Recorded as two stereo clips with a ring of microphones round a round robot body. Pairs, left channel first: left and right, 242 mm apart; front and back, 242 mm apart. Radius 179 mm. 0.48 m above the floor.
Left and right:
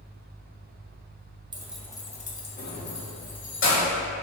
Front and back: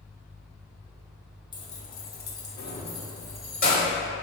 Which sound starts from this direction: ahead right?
Keys jangling, at 1.5 s.